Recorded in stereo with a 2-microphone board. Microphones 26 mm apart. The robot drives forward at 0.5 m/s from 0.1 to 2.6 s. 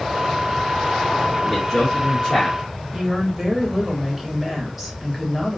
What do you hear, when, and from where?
1.4 s a man speaking: 25° left (ahead or behind), 1.2 m; by 2.6 s 20° left (ahead or behind), 1.7 m
2.9 s a woman speaking: 10° right (ahead or behind), 1.8 m